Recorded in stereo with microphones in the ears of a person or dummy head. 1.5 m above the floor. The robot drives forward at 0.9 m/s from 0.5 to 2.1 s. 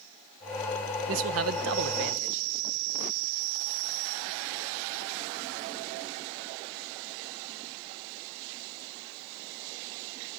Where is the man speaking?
75° right (ahead or behind), 1.5 m; by 2.5 s 70° right (ahead or behind), 1.5 m.